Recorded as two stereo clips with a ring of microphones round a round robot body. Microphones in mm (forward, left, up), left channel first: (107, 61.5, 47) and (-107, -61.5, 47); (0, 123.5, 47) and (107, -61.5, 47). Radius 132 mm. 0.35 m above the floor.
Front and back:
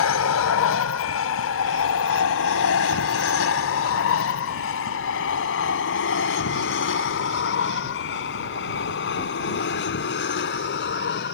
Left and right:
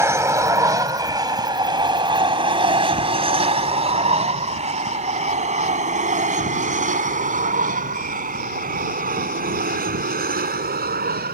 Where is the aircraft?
15° left; by 11.3 s 15° right.